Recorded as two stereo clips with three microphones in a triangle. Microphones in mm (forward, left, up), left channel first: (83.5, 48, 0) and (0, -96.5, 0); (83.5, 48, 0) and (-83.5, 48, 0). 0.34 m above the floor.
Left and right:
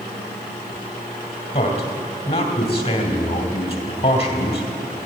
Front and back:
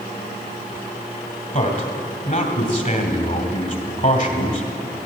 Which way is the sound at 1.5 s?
15° left.